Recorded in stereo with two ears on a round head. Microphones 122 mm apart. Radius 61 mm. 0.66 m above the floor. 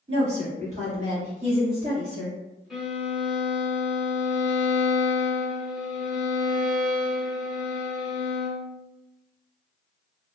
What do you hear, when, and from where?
0.1 s a woman speaking: 45° right (ahead or behind), 1.4 m
2.7 s a violin: 5° right (ahead or behind), 0.7 m